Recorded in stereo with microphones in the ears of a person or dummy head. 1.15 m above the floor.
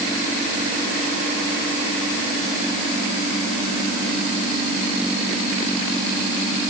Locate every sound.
Only background noise.